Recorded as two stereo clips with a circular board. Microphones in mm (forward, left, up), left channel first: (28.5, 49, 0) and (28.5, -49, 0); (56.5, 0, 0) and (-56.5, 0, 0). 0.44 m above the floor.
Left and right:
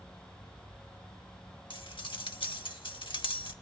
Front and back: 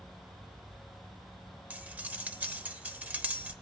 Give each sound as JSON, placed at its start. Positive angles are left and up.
{"t": 1.7, "sound": "cutlery clinking", "azimuth_deg": 105, "distance_m": 0.9}